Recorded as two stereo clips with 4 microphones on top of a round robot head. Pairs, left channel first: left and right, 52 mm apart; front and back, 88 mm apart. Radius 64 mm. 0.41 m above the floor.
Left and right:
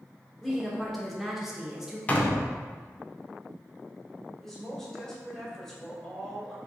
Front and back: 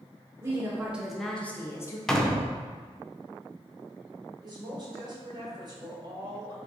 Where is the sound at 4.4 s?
170° left, 1.8 m.